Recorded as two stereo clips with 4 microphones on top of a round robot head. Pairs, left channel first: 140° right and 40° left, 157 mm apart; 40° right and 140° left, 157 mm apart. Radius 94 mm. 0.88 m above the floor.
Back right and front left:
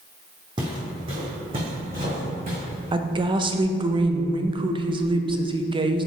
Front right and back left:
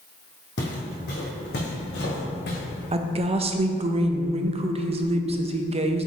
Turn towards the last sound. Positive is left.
turn(degrees=95)